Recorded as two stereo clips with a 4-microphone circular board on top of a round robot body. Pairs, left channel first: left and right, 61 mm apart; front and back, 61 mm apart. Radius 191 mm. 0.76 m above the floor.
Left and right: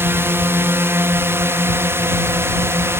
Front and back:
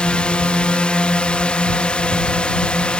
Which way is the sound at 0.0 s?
65° right.